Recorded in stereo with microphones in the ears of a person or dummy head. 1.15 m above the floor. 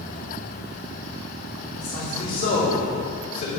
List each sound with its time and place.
1.8 s a man speaking: 35° left (ahead or behind), 3.5 m